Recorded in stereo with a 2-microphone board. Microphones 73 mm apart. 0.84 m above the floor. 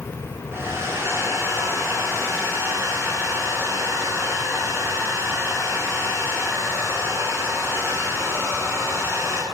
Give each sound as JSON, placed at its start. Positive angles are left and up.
{"t": 0.5, "sound": "a hair dryer", "side_deg": -35, "distance_m": 9.0}